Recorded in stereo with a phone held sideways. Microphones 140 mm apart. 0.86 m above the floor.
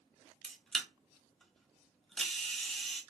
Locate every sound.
0.4 s a camera shutter: 5° left (ahead or behind), 0.8 m